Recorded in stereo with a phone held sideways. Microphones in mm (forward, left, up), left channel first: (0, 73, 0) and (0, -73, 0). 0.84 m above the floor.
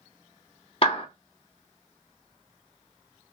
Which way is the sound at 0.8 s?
40° left (ahead or behind).